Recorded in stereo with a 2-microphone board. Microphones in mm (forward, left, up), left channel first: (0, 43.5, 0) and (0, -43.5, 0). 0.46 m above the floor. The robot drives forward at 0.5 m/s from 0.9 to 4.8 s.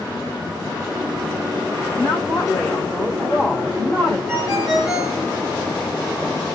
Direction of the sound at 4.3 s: 5° right (ahead or behind).